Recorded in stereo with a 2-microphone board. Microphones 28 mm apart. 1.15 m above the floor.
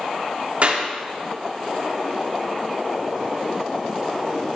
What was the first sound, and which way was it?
A clap, 55° right (ahead or behind).